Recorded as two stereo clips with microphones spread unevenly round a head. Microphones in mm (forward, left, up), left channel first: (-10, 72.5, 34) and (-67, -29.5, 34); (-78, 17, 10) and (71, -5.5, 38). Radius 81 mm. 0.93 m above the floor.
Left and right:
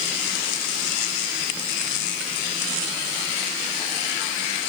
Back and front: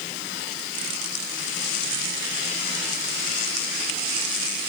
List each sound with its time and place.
Only background noise.